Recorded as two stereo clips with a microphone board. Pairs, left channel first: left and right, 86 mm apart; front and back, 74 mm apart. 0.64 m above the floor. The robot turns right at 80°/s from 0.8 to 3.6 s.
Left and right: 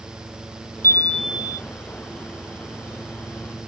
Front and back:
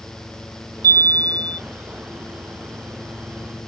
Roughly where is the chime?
Behind left.